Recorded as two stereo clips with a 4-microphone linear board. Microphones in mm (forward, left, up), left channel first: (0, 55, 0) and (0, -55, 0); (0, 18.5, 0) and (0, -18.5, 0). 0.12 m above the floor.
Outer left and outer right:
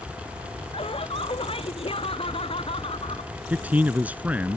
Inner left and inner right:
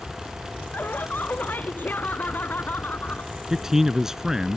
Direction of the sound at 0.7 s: 55° left (ahead or behind).